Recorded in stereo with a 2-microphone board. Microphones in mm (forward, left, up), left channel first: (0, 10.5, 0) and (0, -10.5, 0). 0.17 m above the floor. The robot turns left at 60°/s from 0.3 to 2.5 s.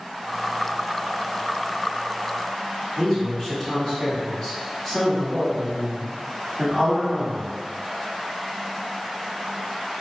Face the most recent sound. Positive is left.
turn(degrees=20)  # may be behind; listen again after turning